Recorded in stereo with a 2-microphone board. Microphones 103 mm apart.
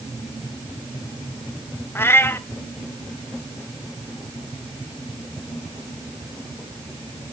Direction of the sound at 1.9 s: 25° left (ahead or behind).